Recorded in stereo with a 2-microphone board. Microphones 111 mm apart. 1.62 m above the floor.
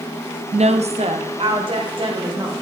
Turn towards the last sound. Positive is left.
turn(degrees=-45)  # may be behind; listen again after turning